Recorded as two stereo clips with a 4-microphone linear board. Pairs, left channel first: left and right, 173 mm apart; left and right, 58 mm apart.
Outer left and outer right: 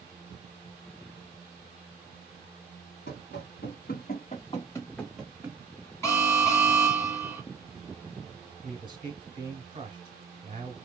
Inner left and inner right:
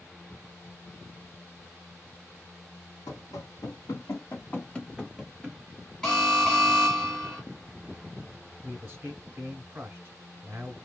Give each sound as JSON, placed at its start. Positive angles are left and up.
{"t": 3.1, "sound": "running footsteps", "side_deg": 80, "distance_m": 1.2}
{"t": 6.0, "sound": "an alarm", "side_deg": 15, "distance_m": 1.3}
{"t": 8.6, "sound": "a man speaking", "side_deg": -25, "distance_m": 1.6}